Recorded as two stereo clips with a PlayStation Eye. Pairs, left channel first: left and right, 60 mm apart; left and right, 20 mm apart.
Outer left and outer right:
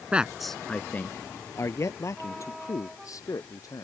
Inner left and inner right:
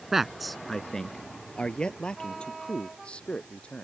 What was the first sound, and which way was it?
A man speaking, 20° right (ahead or behind).